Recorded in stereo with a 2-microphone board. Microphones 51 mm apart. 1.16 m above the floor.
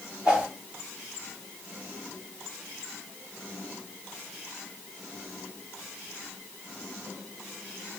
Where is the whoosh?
25° right (ahead or behind), 1.7 m.